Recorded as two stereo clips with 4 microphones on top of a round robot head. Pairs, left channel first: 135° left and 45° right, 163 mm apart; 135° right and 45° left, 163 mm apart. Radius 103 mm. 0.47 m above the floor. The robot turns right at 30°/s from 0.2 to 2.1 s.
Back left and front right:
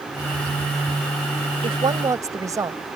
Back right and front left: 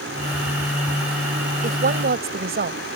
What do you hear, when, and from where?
1.6 s a woman speaking: 10° left; by 2.8 s 25° left